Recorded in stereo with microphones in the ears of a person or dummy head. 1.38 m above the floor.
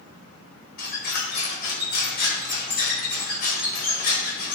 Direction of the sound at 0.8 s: 55° left (ahead or behind).